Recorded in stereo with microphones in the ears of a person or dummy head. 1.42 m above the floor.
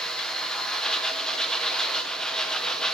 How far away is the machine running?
About 1.0 m.